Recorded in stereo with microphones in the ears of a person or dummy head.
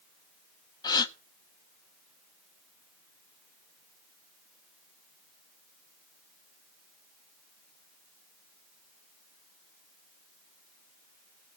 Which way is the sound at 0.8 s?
20° left (ahead or behind).